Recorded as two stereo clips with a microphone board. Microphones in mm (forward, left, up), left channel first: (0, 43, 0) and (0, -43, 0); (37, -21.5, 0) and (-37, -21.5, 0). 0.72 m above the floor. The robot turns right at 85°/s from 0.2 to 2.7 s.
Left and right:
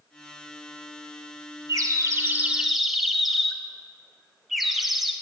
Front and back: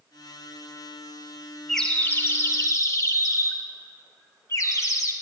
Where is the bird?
90° right, 0.6 m; by 5.1 s 5° right, 0.6 m.